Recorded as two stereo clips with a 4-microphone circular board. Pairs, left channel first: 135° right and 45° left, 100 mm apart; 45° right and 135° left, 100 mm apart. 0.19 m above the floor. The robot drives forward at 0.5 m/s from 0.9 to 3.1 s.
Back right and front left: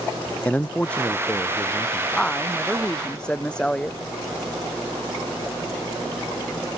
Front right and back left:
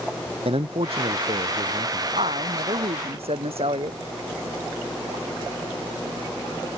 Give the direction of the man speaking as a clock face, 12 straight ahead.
7 o'clock.